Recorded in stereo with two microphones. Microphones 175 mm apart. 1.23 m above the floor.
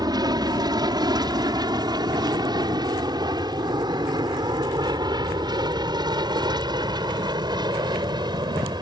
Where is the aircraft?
25° right (ahead or behind).